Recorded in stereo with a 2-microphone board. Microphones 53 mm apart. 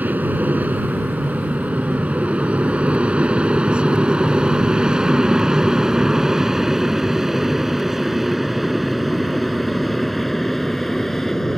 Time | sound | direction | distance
0.0 | an aircraft | 30° right (ahead or behind) | ?